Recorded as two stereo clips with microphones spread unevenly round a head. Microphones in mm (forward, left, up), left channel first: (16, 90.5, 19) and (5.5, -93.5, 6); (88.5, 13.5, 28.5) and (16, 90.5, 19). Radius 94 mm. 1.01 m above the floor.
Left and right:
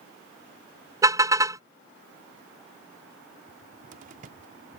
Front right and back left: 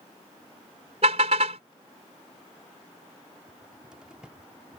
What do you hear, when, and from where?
1.0 s a car horn: 170° right
3.5 s a cupboard door: 140° right